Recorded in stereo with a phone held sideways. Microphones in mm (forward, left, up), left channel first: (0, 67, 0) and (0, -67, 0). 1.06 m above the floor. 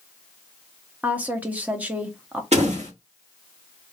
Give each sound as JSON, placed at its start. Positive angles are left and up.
{"t": 1.0, "sound": "a woman speaking", "side_deg": -10, "distance_m": 0.8}
{"t": 2.5, "sound": "a door slam", "side_deg": -55, "distance_m": 1.9}